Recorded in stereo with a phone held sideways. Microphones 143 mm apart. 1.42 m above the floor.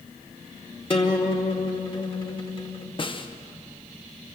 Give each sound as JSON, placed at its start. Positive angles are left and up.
{"t": 0.9, "sound": "a guitar", "side_deg": 40, "distance_m": 1.8}
{"t": 3.0, "sound": "a snare drum", "side_deg": 35, "distance_m": 1.0}